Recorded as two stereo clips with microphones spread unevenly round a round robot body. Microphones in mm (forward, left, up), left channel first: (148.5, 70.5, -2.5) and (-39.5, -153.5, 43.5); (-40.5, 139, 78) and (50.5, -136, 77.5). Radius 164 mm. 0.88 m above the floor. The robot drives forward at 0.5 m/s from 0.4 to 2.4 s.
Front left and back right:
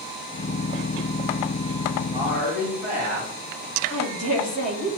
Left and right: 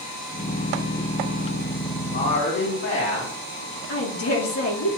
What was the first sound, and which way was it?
A woman speaking, 140° left.